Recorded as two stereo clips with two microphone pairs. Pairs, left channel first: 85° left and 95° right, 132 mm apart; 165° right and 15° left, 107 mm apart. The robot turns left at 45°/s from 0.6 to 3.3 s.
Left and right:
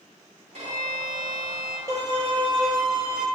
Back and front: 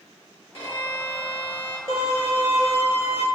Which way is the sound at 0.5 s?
120° right.